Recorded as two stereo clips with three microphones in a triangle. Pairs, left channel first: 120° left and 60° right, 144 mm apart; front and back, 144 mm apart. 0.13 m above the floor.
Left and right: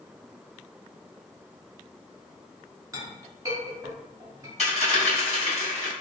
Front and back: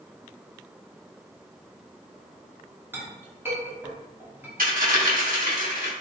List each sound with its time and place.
2.9 s a clink: 115° right, 1.1 m
4.6 s a dropped coin: 165° left, 2.0 m